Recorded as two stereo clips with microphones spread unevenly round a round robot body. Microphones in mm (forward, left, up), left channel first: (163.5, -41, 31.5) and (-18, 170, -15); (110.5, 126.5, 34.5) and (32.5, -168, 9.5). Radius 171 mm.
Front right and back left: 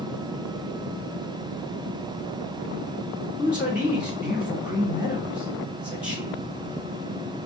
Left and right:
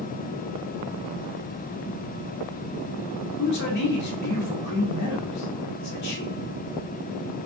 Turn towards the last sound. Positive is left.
turn(degrees=50)